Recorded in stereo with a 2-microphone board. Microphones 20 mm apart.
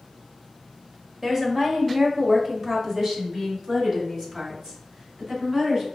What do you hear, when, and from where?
1.2 s a woman speaking: 15° right (ahead or behind), 1.5 m; by 5.8 s 40° right (ahead or behind), 3.5 m